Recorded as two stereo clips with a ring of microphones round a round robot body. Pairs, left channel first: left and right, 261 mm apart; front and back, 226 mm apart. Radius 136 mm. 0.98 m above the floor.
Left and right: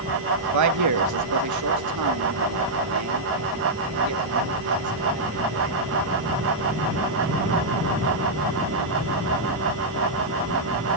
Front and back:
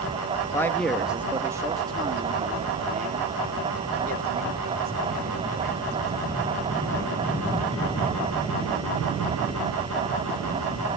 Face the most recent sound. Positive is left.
turn(degrees=-125)